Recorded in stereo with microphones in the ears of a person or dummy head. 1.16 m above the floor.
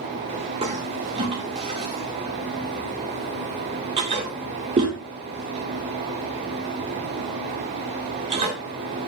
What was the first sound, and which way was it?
A toilet flushing, 35° right (ahead or behind).